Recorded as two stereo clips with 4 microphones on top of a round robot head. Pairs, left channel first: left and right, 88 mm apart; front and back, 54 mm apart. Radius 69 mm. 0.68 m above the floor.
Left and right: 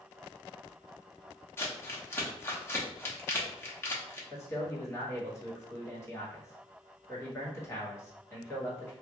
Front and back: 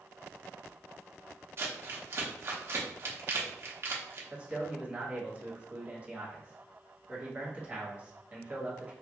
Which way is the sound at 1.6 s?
150° left.